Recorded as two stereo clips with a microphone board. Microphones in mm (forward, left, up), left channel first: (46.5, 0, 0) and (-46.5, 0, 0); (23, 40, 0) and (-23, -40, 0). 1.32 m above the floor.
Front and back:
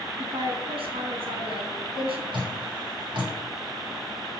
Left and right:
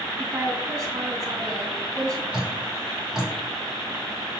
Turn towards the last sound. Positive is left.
turn(degrees=155)